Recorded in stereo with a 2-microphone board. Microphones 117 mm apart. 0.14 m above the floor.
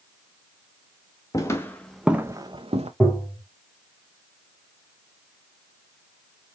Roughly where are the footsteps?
Left.